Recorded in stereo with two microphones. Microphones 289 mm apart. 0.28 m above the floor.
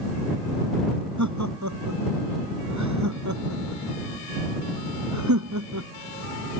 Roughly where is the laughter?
Right.